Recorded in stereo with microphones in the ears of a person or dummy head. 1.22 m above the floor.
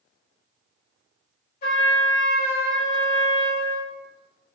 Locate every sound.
1.6 s a trumpet: 55° left (ahead or behind), 1.7 m